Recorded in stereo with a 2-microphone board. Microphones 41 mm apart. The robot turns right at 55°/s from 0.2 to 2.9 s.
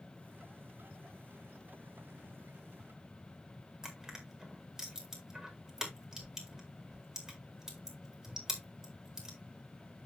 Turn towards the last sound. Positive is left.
turn(degrees=-15)  # may be behind; listen again after turning